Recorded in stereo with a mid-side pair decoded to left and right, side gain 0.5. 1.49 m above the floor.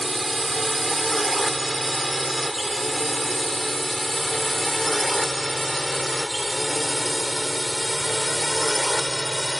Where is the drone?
15° right; by 9.6 s straight ahead.